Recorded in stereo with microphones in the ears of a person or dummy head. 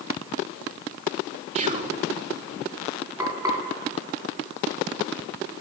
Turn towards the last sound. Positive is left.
turn(degrees=-20)  # may be behind; listen again after turning